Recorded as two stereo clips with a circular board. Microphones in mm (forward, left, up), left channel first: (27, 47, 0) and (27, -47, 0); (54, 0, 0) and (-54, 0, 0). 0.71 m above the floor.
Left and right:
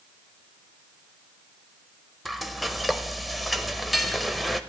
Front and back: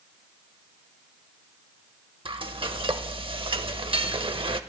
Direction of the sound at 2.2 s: Straight behind.